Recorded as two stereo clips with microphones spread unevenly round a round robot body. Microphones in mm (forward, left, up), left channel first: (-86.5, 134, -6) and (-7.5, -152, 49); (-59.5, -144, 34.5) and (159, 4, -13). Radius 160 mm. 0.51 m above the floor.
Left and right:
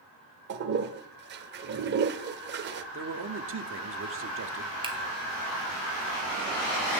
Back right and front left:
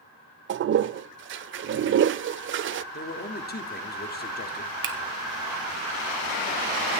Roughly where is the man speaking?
Right.